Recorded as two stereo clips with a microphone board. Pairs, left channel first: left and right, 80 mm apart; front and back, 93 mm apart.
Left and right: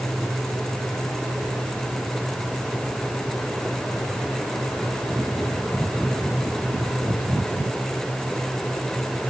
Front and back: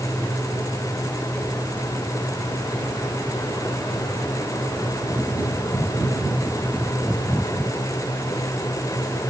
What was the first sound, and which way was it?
Only background noise.